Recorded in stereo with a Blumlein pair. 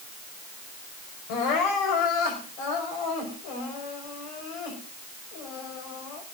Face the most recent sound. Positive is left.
turn(degrees=45)